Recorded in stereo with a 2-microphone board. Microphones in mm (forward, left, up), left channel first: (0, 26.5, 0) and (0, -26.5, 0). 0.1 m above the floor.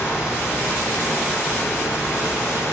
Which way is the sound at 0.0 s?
35° left (ahead or behind).